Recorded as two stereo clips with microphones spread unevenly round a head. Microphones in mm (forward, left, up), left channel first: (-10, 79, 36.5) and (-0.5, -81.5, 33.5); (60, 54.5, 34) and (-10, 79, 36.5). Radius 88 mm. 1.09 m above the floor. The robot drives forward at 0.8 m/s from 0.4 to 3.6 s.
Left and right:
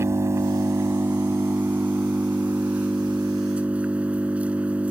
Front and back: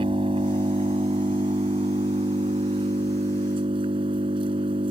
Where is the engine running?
160° right; by 4.9 s 170° right.